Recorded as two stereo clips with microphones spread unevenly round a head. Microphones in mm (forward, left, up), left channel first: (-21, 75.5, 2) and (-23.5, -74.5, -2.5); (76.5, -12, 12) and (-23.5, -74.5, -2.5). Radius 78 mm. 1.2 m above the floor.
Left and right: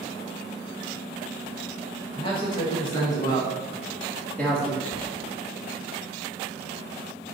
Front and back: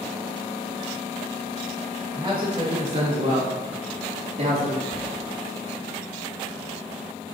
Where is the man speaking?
145° left, 2.5 m; by 4.8 s 175° left, 2.5 m.